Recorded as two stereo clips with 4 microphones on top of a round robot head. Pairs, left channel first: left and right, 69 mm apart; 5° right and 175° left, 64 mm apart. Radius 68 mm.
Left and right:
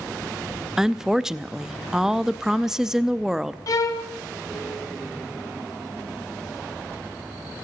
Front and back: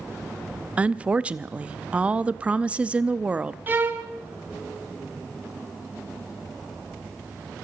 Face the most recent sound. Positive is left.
turn(degrees=120)